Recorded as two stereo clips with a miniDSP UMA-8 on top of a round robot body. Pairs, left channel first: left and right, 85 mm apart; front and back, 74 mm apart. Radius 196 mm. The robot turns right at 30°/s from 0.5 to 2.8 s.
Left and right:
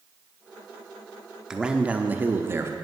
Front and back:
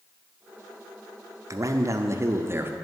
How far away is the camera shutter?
No camera shutter in this recording.